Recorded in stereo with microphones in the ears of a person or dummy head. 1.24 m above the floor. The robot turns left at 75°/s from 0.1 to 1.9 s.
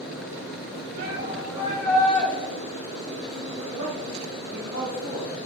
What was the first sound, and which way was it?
A shout, 110° right.